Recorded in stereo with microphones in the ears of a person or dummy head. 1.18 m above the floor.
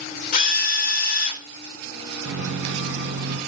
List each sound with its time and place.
0.3 s a drill: 45° left (ahead or behind), 0.7 m
2.2 s a microwave: 65° right (ahead or behind), 0.9 m